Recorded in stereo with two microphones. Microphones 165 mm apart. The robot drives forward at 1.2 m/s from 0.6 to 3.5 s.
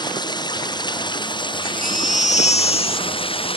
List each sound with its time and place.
0.0 s running water: 25° left (ahead or behind); by 3.6 s 35° left (ahead or behind)
1.6 s a baby crying: 65° left (ahead or behind); by 3.2 s 35° left (ahead or behind)